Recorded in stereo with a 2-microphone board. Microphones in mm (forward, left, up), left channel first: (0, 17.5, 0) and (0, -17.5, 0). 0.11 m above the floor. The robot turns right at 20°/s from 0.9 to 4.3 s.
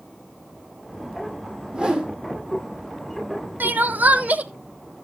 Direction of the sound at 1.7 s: 30° right (ahead or behind).